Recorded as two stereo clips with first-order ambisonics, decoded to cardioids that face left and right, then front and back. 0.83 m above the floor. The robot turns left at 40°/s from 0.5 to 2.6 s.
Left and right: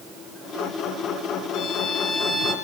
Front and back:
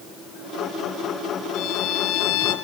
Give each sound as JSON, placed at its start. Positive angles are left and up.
{"t": 1.5, "sound": "a violin", "azimuth_deg": 50, "distance_m": 5.5}